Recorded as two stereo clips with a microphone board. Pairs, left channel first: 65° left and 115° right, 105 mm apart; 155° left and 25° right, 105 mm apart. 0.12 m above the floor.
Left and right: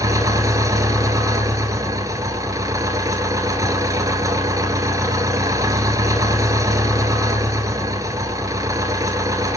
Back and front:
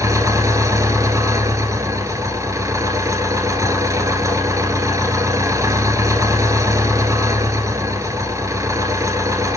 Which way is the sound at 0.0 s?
70° right.